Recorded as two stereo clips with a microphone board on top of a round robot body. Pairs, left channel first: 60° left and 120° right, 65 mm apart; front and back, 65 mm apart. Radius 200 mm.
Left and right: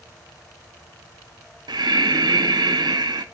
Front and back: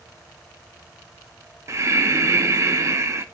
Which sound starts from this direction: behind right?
Breathing, at 1.7 s.